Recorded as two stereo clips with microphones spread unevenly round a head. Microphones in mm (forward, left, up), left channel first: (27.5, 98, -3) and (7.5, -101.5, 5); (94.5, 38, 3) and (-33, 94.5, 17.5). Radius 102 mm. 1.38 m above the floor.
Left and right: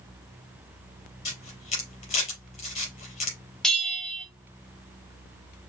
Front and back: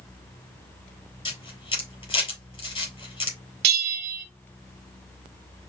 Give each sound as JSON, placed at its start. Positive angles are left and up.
{"t": 1.2, "sound": "a camera shutter", "azimuth_deg": 25, "distance_m": 3.5}
{"t": 3.6, "sound": "a bell", "azimuth_deg": 170, "distance_m": 0.7}